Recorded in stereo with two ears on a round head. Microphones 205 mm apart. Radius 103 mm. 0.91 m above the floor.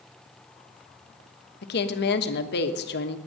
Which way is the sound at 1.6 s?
50° left (ahead or behind).